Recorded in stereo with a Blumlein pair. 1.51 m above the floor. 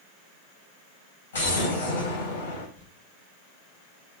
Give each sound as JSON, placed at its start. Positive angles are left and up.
{"t": 1.3, "sound": "an explosion", "azimuth_deg": 65, "distance_m": 4.0}
{"t": 2.8, "sound": "crumpling", "azimuth_deg": 50, "distance_m": 1.7}